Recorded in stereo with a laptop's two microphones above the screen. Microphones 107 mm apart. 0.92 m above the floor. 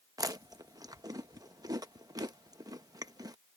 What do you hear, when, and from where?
0.2 s chewing: 35° right (ahead or behind)